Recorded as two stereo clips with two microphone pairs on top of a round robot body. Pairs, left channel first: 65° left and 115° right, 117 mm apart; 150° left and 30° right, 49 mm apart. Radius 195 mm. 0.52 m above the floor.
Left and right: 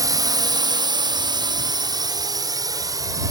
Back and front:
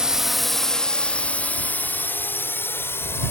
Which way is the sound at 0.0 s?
85° right.